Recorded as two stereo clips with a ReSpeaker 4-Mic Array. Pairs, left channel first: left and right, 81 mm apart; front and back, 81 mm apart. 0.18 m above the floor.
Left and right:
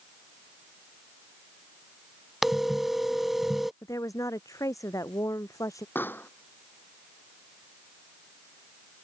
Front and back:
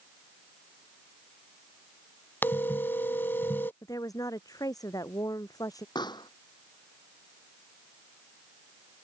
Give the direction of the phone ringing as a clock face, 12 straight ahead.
12 o'clock.